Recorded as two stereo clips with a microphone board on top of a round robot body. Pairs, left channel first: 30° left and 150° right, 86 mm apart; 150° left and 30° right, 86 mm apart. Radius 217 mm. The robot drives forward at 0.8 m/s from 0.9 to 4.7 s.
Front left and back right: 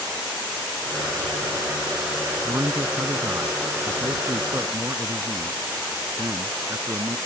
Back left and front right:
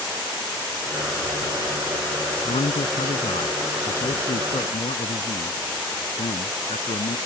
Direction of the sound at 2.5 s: 145° left.